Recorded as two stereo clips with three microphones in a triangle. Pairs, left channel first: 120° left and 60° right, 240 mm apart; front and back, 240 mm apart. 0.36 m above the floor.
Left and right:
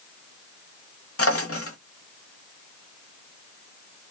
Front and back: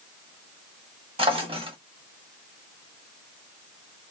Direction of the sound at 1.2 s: 115° left.